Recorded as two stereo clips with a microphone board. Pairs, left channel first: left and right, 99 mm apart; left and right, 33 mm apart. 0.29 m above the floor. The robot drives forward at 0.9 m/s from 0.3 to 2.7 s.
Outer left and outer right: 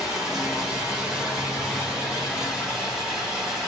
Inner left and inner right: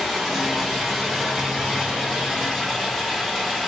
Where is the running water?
5° right (ahead or behind), 5 m.